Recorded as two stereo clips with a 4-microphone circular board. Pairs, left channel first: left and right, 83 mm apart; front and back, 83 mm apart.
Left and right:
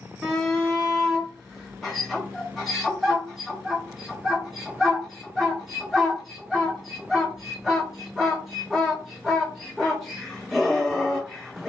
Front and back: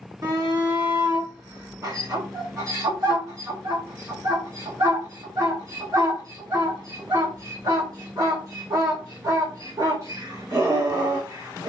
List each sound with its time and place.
0.2 s a shout: straight behind, 1.6 m